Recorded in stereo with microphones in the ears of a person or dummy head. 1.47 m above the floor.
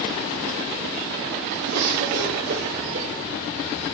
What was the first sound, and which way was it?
A cough, 90° right.